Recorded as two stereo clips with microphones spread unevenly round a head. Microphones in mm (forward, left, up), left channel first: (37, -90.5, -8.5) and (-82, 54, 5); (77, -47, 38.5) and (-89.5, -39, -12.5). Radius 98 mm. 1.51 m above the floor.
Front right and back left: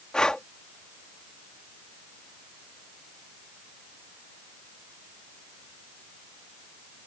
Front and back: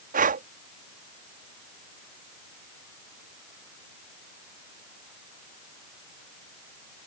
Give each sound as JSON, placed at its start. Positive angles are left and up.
{"t": 0.1, "sound": "breathing", "azimuth_deg": -140}